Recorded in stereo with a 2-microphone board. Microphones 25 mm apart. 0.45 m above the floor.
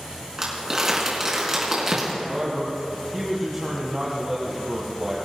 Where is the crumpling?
20° right (ahead or behind), 4 m.